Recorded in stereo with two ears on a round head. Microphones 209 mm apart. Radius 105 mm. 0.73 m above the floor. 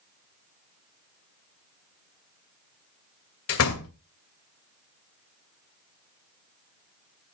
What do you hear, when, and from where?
3.5 s a door slam: 70° left (ahead or behind), 2 m